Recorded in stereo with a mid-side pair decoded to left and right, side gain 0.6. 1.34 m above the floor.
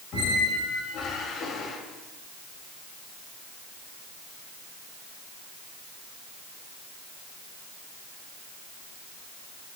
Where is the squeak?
55° left, 5 m.